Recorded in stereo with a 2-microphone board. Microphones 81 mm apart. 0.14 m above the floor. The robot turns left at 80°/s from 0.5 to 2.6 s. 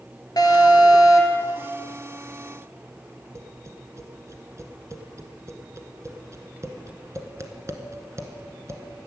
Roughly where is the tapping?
Right.